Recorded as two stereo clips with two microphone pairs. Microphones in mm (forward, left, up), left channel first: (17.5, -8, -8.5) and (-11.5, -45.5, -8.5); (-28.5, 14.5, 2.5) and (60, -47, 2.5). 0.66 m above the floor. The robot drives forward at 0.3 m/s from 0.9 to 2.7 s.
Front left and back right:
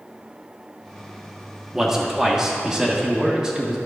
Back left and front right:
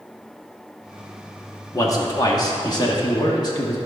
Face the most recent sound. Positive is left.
turn(degrees=170)